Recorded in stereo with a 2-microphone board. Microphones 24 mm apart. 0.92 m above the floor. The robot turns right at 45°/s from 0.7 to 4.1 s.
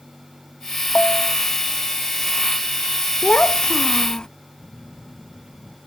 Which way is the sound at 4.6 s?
55° left (ahead or behind).